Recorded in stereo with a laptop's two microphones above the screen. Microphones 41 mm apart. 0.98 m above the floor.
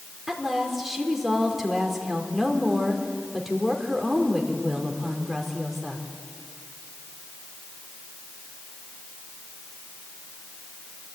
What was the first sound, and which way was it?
A woman speaking, 5° right (ahead or behind).